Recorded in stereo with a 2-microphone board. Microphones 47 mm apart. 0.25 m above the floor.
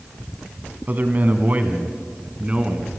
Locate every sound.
0.9 s a man speaking: 40° right (ahead or behind), 2 m; by 2.9 s 20° right (ahead or behind), 2.5 m